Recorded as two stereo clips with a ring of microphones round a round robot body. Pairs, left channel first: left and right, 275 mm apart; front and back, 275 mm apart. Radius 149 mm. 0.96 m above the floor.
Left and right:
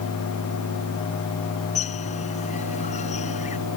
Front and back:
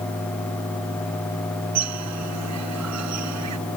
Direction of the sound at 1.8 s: 160° left.